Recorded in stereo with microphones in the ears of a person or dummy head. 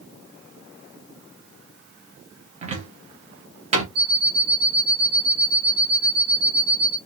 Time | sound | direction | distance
2.6 | a cupboard door | 40° right (ahead or behind) | 0.7 m
4.0 | an alarm clock | 60° right (ahead or behind) | 1.2 m